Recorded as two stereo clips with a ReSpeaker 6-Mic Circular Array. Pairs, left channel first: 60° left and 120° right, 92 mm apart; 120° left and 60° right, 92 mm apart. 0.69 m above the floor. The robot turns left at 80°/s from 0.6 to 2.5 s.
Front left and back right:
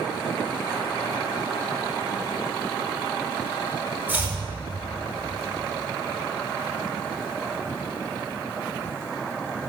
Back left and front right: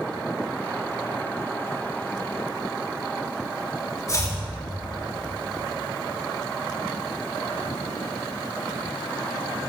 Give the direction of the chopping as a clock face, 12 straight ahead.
6 o'clock.